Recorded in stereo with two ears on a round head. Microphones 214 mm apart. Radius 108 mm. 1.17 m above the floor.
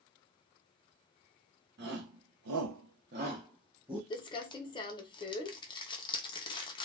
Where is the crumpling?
20° left (ahead or behind), 0.6 m.